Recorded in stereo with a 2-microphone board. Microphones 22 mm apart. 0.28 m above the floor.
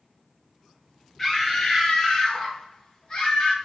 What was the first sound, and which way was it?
A scream, 10° left (ahead or behind).